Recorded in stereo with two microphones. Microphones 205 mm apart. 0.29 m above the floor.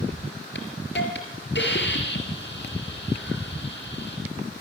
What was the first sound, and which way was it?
A hiss, 55° left (ahead or behind).